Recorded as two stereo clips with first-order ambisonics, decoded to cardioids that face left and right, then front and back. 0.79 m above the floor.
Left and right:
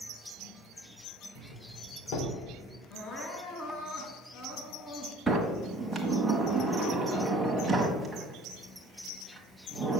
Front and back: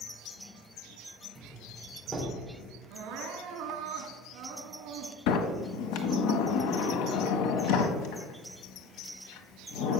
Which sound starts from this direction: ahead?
A sliding door, at 5.3 s.